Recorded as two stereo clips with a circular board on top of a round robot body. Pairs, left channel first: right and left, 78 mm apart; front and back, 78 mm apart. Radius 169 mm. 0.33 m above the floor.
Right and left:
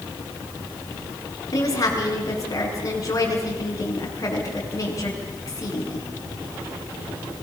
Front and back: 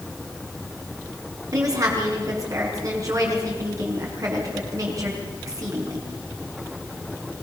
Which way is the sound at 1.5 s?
135° right.